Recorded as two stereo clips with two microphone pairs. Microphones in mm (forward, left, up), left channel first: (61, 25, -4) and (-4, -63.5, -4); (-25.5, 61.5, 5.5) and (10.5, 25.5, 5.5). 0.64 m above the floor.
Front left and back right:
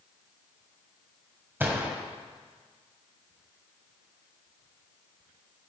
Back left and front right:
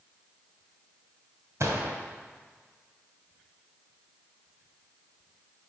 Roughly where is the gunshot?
Ahead right.